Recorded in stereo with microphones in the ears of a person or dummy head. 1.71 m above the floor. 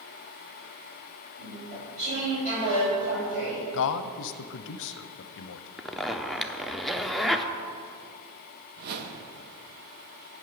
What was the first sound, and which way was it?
Chewing, 40° right (ahead or behind).